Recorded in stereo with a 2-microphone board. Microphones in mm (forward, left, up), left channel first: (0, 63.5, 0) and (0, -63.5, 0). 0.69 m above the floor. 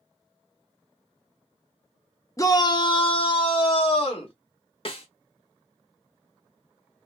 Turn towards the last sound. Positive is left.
turn(degrees=45)  # may be behind; listen again after turning